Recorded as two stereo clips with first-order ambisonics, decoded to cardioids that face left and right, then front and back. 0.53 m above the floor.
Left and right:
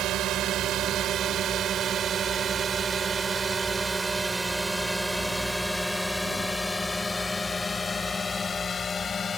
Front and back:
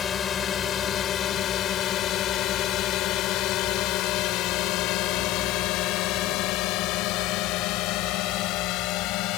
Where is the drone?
55° right; by 9.4 s 25° left.